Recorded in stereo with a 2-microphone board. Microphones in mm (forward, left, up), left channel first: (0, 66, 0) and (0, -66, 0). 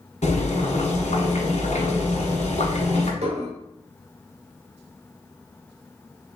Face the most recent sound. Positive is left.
turn(degrees=-60)  # may be behind; listen again after turning